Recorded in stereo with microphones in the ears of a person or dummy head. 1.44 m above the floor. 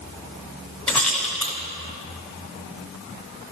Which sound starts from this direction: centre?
A rattle, at 0.9 s.